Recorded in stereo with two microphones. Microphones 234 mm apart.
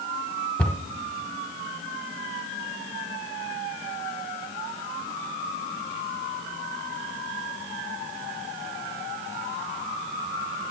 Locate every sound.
0.6 s a cupboard door: 5° left (ahead or behind), 0.6 m